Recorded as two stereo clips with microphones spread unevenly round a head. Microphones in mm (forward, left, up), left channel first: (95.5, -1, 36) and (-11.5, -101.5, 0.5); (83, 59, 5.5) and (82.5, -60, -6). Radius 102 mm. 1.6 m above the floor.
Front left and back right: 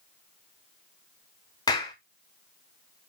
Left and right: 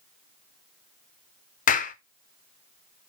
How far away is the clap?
About 1.0 m.